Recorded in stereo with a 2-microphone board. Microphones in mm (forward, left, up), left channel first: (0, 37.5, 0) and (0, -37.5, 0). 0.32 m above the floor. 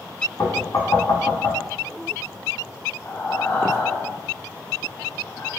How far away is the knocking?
About 2 m.